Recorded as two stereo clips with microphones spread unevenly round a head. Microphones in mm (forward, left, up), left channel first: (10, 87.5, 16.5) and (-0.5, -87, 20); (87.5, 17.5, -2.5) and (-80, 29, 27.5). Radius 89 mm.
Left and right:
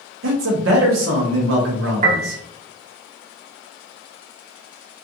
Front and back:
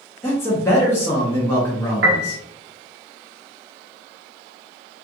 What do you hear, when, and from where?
0.2 s a man speaking: 80° right, 0.9 m
2.0 s a piano: 145° right, 0.8 m